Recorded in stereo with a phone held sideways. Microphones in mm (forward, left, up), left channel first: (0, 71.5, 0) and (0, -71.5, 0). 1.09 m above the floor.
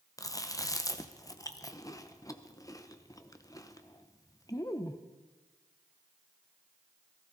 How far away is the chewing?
About 0.7 m.